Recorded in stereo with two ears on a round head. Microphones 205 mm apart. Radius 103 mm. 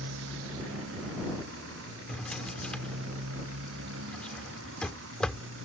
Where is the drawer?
5° left (ahead or behind).